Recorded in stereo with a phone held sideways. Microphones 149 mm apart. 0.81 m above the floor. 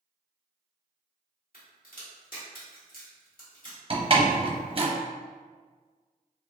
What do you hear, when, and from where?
1.5 s a crack: 75° left (ahead or behind), 1.4 m
3.9 s a door slam: 40° right (ahead or behind), 0.7 m